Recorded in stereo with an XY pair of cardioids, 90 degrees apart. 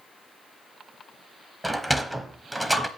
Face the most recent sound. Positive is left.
turn(degrees=-15)